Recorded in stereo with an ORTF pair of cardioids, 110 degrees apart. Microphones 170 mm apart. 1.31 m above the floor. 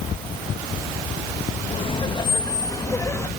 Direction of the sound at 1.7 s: 35° left.